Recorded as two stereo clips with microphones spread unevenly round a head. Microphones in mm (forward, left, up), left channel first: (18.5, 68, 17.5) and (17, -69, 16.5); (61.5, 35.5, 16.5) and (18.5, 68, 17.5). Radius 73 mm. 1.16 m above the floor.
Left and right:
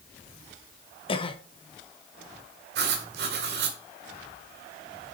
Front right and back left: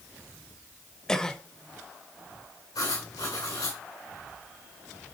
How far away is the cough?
About 1.0 m.